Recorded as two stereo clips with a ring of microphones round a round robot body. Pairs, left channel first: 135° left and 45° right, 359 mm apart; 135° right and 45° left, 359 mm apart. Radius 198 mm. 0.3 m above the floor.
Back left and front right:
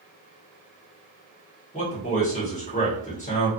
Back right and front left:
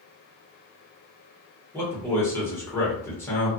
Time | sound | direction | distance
1.7 | a man speaking | 155° left | 1.3 m